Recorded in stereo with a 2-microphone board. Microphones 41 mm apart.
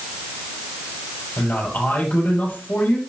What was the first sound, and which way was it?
A man speaking, 50° left (ahead or behind).